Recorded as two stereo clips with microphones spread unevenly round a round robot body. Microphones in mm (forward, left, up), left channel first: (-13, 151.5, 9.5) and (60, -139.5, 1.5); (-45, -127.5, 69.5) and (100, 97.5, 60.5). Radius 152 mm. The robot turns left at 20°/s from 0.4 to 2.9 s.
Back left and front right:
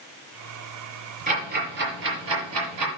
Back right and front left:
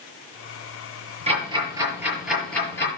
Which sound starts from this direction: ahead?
Ticking, at 1.3 s.